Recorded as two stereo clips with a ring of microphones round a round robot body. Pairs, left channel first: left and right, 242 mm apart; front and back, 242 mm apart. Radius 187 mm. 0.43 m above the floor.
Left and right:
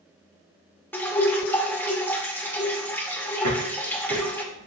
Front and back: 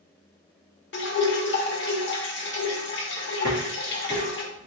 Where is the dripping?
10° left, 1.6 m.